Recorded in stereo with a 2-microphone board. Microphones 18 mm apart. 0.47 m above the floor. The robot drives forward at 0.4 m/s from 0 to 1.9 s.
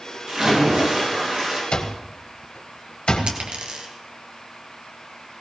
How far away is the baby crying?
No baby crying in this recording.